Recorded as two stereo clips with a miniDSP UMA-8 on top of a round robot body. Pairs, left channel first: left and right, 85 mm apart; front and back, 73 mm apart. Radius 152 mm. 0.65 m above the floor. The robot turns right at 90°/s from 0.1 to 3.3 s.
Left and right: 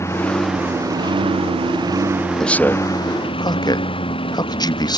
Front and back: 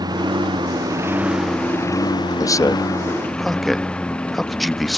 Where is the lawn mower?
150° left; by 5.0 s 80° left.